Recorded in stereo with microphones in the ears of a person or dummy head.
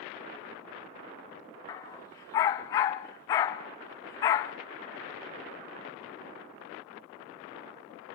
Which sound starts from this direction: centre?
A dog barking, at 1.7 s.